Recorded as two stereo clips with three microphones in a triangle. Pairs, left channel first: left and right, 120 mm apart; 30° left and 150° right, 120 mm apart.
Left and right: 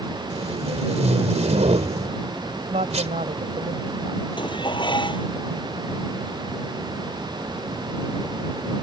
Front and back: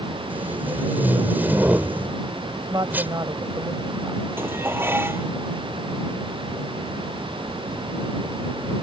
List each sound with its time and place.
0.3 s tape being pulled: 75° right
2.7 s a woman speaking: 95° right
4.4 s dishes clattering: 140° left